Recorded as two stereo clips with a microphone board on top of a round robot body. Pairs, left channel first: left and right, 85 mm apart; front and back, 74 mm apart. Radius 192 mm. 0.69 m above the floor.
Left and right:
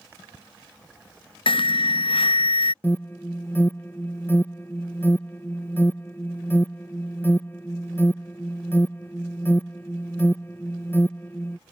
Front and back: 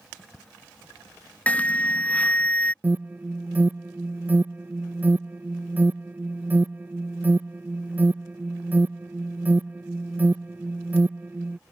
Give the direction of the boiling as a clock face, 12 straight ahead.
No boiling in this recording.